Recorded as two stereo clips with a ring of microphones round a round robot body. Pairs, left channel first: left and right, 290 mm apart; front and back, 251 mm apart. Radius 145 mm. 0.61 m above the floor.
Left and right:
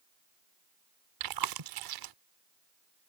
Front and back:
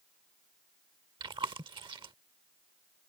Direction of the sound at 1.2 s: 105° right.